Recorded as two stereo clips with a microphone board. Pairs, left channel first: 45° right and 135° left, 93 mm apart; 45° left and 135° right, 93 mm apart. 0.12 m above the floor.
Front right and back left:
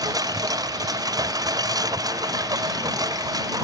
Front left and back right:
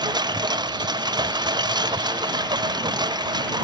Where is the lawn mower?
175° right.